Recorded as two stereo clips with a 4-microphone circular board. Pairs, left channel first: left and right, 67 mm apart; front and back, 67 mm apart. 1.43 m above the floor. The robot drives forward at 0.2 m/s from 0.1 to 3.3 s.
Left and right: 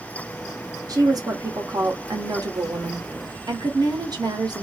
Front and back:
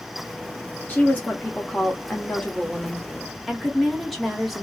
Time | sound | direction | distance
0.9 | a woman speaking | 65° right | 1.1 m